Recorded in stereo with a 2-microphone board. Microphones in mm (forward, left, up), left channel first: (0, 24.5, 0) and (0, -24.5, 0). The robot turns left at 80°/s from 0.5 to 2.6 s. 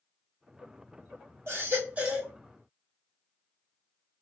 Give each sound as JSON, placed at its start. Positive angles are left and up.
{"t": 1.5, "sound": "a baby crying", "azimuth_deg": -110, "distance_m": 1.8}